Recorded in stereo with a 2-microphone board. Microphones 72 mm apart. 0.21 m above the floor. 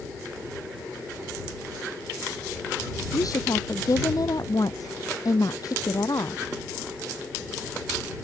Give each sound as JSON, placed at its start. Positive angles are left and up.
{"t": 3.1, "sound": "a woman speaking", "side_deg": 55}